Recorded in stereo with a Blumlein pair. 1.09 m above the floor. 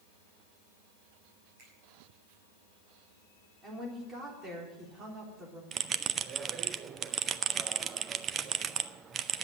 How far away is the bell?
About 0.5 m.